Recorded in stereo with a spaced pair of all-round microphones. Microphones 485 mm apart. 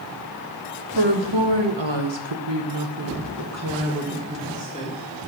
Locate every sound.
0.9 s a woman speaking: 65° right (ahead or behind), 1.4 m; by 5.0 s 10° right (ahead or behind), 1.7 m